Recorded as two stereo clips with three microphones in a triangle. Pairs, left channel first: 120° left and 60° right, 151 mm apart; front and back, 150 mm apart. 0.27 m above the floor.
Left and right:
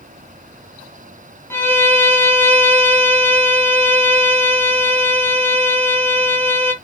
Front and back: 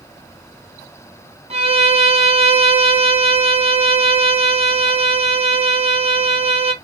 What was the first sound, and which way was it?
A violin, 170° right.